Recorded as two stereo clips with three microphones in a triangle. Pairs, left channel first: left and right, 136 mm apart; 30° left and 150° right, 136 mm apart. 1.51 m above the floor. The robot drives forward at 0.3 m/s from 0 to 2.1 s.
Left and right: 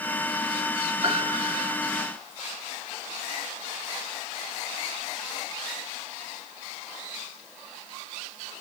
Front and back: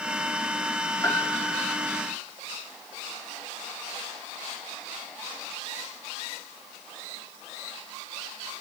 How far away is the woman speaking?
No woman speaking in this recording.